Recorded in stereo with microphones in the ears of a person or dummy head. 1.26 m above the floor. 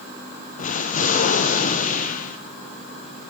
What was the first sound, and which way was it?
An explosion, 35° left (ahead or behind).